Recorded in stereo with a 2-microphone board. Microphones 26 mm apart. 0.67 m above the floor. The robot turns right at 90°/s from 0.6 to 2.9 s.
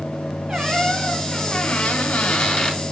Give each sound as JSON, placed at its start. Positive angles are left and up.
{"t": 0.5, "sound": "a squeak", "azimuth_deg": -35, "distance_m": 3.5}